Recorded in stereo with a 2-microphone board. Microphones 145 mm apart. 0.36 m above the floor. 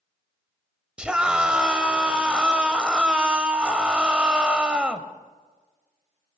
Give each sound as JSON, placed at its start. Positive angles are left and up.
{"t": 1.0, "sound": "a scream", "side_deg": -5, "distance_m": 1.8}